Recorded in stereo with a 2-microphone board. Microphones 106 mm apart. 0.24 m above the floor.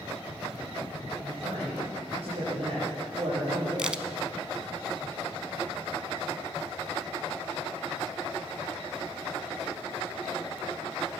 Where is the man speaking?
65° right (ahead or behind), 6.5 m.